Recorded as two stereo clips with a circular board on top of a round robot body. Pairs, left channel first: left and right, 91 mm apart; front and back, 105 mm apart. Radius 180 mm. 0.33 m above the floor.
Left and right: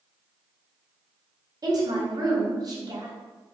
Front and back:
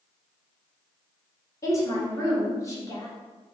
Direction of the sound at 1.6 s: 55° right.